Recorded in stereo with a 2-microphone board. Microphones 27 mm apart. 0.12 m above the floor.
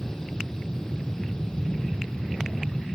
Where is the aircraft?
20° left (ahead or behind); by 3.0 s 30° left (ahead or behind).